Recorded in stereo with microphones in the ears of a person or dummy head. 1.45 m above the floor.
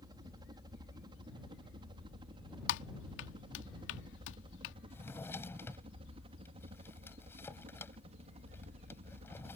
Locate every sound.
0.0 s a helicopter: 20° right (ahead or behind); by 9.6 s 35° right (ahead or behind)
2.7 s typing on a keyboard: 70° left (ahead or behind)
4.9 s a drawer: 15° left (ahead or behind)